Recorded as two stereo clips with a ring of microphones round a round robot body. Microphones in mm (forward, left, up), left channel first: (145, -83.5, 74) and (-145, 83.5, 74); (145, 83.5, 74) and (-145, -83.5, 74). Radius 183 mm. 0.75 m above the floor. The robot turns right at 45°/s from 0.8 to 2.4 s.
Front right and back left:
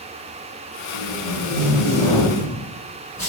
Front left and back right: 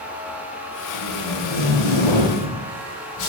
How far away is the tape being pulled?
About 7 m.